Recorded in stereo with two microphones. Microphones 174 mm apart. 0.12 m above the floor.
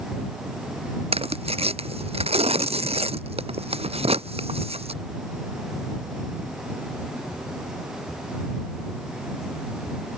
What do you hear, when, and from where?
1.1 s tearing paper: 35° right (ahead or behind)